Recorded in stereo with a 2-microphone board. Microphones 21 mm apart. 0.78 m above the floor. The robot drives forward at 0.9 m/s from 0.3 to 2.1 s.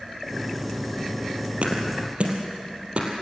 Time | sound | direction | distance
1.6 | a thud | 65° right (ahead or behind) | 3.5 m